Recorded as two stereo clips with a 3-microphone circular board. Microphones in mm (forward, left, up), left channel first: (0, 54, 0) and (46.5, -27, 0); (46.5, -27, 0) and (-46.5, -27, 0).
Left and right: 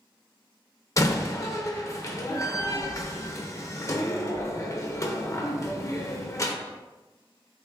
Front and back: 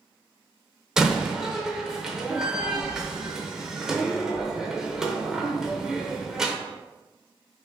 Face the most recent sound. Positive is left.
turn(degrees=105)